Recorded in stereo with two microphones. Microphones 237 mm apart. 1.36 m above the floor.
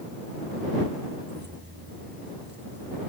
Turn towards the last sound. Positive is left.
turn(degrees=-45)  # may be behind; listen again after turning